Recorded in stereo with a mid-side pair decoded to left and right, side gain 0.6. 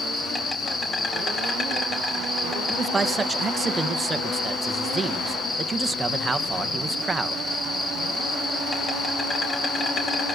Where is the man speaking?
20° right, 1.6 m.